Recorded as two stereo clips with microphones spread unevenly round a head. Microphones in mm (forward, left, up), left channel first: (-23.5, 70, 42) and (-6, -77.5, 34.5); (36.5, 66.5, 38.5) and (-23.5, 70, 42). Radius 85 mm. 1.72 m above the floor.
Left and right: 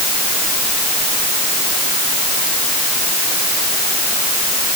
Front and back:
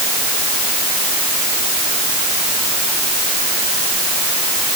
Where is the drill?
No drill in this recording.